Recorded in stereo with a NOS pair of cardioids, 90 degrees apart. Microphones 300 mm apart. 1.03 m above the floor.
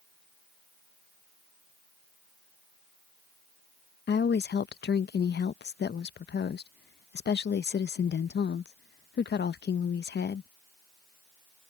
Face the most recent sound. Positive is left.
turn(degrees=35)